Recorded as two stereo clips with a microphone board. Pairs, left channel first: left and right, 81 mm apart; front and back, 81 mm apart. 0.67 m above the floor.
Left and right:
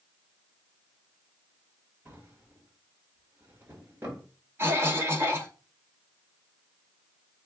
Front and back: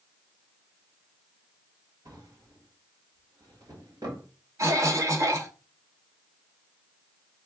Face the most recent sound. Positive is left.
turn(degrees=-145)